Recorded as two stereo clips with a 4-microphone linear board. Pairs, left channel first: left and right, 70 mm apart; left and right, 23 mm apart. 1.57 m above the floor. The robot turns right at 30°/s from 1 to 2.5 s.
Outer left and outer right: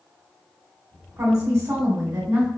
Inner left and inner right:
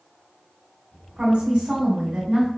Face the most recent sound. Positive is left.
turn(degrees=-85)